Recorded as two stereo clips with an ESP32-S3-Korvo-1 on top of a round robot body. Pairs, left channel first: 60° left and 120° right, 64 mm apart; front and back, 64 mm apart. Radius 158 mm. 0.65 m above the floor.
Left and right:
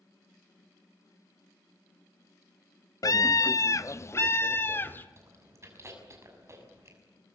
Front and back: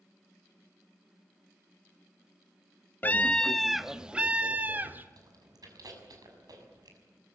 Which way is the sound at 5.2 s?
165° right.